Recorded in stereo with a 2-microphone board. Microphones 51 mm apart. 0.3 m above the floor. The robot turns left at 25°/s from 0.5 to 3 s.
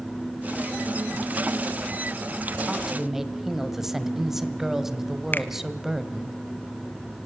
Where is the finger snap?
40° left (ahead or behind), 1.3 m.